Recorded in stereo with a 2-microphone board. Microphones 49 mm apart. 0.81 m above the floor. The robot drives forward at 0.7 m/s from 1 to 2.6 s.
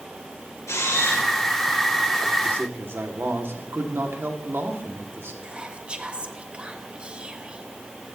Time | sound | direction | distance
0.7 | a camera shutter | 80° left | 4 m
2.5 | a man speaking | 50° right (ahead or behind) | 1.8 m
5.4 | whispering | 20° right (ahead or behind) | 1.0 m